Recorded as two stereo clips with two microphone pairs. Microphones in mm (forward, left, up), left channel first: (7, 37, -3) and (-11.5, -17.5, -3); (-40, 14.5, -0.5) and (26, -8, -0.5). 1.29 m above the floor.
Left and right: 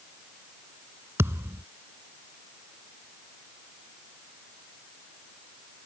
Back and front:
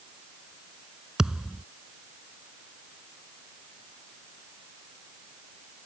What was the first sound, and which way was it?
A thud, 100° right.